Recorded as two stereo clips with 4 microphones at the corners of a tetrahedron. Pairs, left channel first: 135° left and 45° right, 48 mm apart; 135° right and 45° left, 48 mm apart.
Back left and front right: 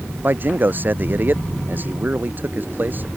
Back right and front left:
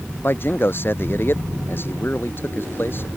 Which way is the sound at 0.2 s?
90° right.